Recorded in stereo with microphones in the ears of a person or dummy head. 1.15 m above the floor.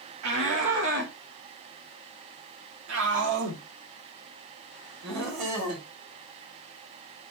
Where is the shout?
75° right (ahead or behind), 1.5 m; by 5.8 s 60° right (ahead or behind), 4 m.